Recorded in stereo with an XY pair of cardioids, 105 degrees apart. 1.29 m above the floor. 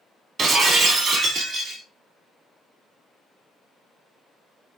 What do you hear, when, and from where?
0.4 s breaking glass: 50° right, 1.9 m